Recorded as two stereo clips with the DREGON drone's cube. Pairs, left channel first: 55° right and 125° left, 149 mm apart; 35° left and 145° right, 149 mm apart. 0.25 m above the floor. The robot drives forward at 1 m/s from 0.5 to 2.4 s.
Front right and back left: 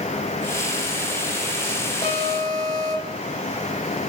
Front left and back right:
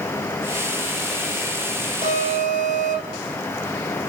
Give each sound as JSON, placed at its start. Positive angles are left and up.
{"t": 2.0, "sound": "an alarm", "azimuth_deg": -105, "distance_m": 8.0}